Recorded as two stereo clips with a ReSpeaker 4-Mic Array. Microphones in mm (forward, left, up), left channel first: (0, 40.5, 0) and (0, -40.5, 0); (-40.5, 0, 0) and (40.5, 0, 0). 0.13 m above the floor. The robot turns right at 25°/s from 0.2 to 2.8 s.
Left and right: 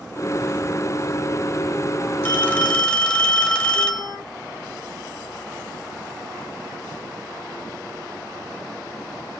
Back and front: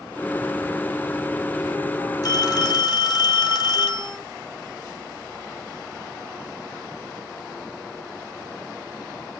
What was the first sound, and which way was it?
A phone ringing, 150° left.